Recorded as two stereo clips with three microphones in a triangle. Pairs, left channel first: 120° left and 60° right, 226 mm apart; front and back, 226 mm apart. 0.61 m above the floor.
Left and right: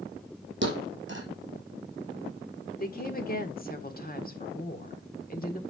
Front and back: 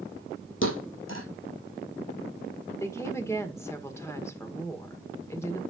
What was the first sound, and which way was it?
A thud, 25° right.